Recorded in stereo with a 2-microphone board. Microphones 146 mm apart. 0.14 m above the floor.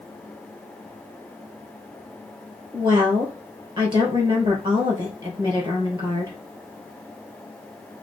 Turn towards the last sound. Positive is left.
turn(degrees=-35)  # may be behind; listen again after turning